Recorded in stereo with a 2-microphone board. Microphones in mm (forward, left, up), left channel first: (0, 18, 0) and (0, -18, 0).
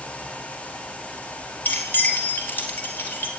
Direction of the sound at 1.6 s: 60° left (ahead or behind).